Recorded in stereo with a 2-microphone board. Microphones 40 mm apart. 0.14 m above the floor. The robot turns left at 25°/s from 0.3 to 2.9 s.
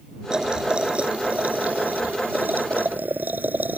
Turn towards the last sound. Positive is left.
turn(degrees=-90)